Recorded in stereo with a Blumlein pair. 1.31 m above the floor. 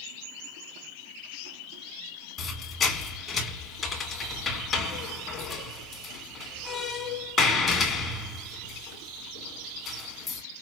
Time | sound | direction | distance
2.4 | a squeak | 20° left | 1.3 m